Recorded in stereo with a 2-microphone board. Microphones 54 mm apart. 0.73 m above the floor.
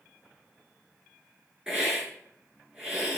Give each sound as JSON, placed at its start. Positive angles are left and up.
{"t": 1.7, "sound": "a hiss", "side_deg": -15, "distance_m": 5.0}